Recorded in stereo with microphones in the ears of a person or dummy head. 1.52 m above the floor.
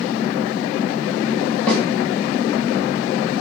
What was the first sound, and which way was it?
A snare drum, 10° left (ahead or behind).